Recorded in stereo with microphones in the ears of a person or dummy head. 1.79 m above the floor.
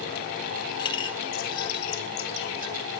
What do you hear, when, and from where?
0.8 s a clink: 25° left (ahead or behind), 2 m